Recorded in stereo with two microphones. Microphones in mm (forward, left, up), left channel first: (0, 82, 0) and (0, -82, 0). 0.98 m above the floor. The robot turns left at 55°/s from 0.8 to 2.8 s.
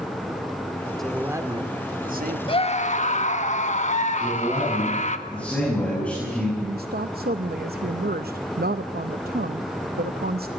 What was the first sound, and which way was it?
A man speaking, straight ahead.